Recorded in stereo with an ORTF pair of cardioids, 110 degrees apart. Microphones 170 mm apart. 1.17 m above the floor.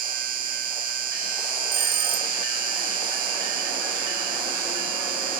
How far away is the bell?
About 1.8 m.